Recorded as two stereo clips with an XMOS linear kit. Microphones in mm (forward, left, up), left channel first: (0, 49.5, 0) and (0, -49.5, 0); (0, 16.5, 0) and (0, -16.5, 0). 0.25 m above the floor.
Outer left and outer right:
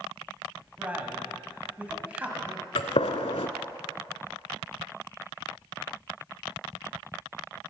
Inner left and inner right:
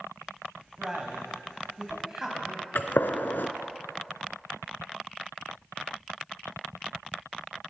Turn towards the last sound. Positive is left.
turn(degrees=85)